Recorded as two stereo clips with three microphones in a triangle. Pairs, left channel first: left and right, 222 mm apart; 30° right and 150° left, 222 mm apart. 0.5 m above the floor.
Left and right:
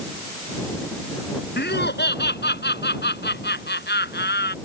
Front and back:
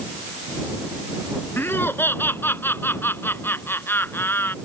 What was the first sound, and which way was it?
Laughter, 50° left.